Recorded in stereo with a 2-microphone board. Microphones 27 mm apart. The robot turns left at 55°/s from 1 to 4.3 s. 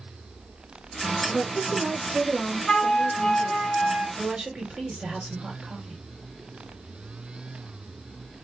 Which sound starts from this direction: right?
A woman speaking, at 4.2 s.